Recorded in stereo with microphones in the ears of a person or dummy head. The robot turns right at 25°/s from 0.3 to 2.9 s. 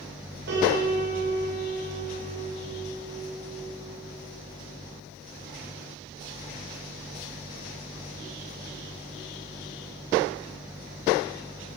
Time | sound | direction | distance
0.5 | a piano | 120° right | 5.5 m